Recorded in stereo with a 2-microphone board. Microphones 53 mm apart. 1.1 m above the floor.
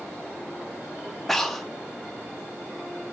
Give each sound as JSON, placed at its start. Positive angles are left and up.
{"t": 1.3, "sound": "breathing", "side_deg": 0, "distance_m": 0.8}